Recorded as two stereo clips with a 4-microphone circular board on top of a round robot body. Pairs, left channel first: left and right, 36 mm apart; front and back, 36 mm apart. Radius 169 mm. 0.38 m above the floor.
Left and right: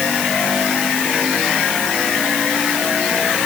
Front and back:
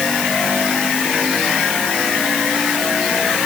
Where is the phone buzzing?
I don't hear a phone buzzing.